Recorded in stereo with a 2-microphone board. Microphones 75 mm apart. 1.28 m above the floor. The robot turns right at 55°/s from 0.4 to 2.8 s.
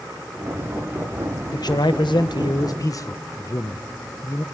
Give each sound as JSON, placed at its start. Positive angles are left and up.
{"t": 1.5, "sound": "a man speaking", "azimuth_deg": 60, "distance_m": 0.9}